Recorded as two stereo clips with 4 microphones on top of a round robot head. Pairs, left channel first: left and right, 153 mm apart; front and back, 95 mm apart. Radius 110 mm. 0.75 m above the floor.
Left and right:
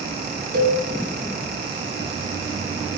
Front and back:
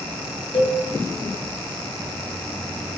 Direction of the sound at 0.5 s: 60° right.